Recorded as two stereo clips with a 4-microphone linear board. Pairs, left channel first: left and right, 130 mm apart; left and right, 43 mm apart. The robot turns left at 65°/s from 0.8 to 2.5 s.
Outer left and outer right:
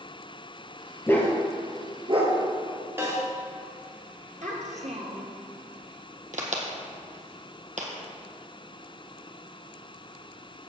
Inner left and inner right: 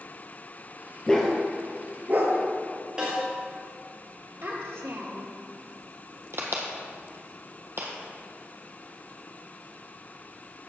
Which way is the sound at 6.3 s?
70° right (ahead or behind).